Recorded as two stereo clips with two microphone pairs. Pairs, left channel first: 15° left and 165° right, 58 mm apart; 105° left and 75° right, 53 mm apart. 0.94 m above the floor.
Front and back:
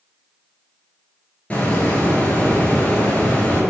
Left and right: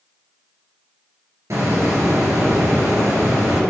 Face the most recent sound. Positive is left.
turn(degrees=-55)